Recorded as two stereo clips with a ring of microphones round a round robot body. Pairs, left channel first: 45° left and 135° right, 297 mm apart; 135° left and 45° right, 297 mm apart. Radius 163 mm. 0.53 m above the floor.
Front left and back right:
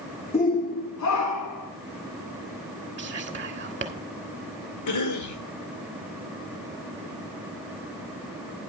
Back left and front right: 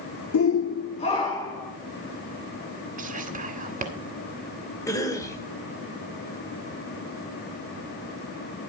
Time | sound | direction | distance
0.3 | a shout | 110° left | 1.0 m
3.0 | whispering | 90° right | 1.3 m
4.9 | a cough | 55° left | 1.7 m